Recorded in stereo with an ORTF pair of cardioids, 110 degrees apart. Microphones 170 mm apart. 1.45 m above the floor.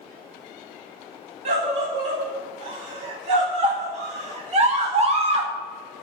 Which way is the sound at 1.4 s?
40° right.